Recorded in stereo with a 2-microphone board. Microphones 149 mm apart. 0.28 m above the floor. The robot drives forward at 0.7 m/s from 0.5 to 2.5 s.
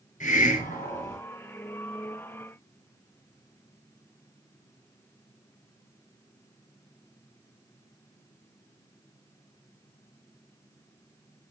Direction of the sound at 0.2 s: 55° left (ahead or behind).